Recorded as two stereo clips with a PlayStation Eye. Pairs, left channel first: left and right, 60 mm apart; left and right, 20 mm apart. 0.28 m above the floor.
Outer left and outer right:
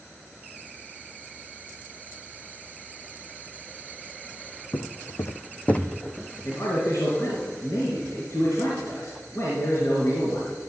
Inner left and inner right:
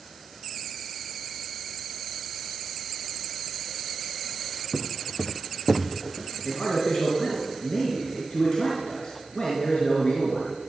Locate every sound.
4.7 s footsteps: 75° left (ahead or behind), 1.3 m; by 6.6 s 10° right (ahead or behind), 2 m
6.4 s a man speaking: 60° left (ahead or behind), 4 m